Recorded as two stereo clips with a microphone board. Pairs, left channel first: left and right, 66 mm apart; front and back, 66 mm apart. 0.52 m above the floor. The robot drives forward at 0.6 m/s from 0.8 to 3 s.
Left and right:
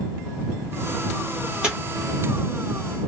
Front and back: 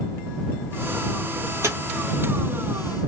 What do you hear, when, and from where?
1.6 s tearing paper: 160° right, 1.7 m